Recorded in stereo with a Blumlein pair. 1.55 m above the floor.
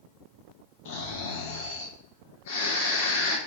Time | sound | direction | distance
0.8 | snoring | 55° left | 0.8 m